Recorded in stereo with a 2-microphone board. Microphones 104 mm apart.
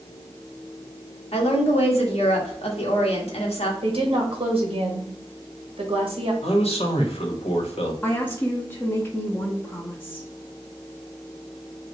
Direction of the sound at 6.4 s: 75° left (ahead or behind).